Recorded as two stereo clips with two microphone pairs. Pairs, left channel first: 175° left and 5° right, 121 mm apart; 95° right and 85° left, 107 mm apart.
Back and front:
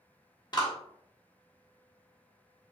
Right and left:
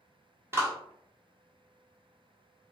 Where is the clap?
140° left, 1.2 m.